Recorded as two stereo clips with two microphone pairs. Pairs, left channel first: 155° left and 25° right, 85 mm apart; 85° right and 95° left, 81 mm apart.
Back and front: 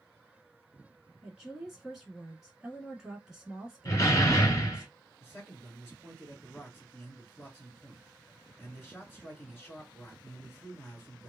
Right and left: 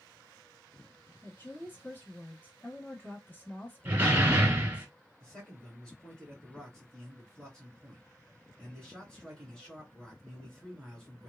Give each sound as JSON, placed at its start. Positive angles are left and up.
{"t": 1.2, "sound": "a woman speaking", "azimuth_deg": -105, "distance_m": 1.2}
{"t": 3.9, "sound": "a door slam", "azimuth_deg": 150, "distance_m": 1.0}
{"t": 5.2, "sound": "a man speaking", "azimuth_deg": -160, "distance_m": 1.9}